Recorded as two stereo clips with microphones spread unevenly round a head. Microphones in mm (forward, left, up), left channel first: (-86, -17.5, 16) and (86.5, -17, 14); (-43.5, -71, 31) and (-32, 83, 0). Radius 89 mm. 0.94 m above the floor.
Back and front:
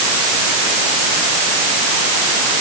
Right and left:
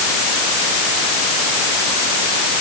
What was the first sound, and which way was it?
Only background noise.